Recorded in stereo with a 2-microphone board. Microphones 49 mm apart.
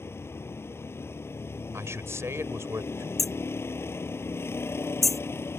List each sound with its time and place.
0.0 s a vehicle: 60° left (ahead or behind)
1.7 s a man speaking: 75° right (ahead or behind)
3.2 s hammering: 5° left (ahead or behind)